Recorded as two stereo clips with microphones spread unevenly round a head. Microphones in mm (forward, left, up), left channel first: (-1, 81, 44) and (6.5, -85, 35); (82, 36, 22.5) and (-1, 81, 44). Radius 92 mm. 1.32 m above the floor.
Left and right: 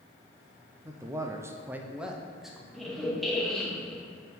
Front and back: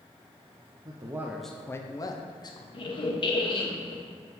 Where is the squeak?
5° left, 0.8 m.